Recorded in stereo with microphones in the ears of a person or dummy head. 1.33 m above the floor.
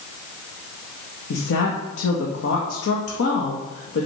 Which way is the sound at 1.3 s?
75° left (ahead or behind).